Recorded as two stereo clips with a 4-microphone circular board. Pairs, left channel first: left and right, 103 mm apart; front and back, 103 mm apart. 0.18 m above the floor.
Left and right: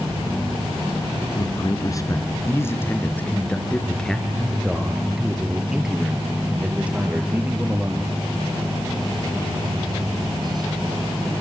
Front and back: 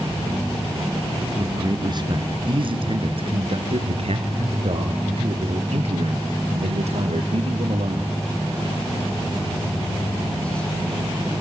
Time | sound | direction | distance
1.4 | a man speaking | 130° left | 2.5 m